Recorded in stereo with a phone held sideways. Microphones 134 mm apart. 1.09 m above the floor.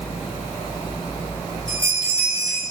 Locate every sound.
1.7 s a bell: 40° left (ahead or behind), 6 m